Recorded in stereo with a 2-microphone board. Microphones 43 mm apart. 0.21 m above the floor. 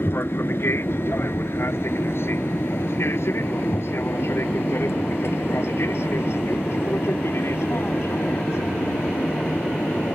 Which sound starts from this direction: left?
An aircraft, at 0.0 s.